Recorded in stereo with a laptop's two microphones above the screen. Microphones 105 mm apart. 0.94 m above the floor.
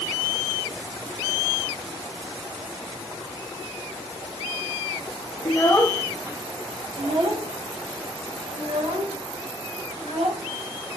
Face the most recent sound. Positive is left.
turn(degrees=-80)